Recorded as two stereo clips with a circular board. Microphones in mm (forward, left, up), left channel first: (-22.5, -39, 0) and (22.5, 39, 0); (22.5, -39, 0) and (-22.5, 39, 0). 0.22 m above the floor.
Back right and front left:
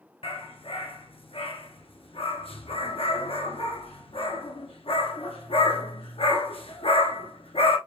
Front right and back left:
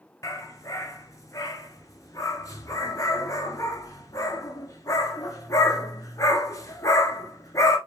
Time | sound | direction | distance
0.2 | a dog barking | 115° right | 1.0 m